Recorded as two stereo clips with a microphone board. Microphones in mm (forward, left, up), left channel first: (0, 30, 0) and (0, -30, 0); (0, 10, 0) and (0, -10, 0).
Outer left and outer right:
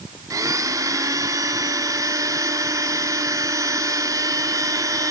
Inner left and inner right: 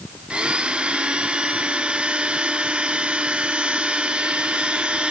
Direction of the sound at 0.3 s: 70° right (ahead or behind).